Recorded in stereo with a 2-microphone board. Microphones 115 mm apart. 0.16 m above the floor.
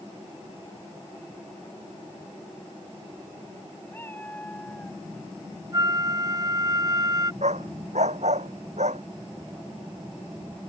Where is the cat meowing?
15° left (ahead or behind); by 5.0 s 5° left (ahead or behind).